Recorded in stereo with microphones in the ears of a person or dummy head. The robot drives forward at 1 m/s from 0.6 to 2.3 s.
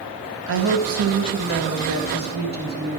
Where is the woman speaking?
70° right (ahead or behind), 1.6 m; by 3.0 s 50° right (ahead or behind), 1.9 m.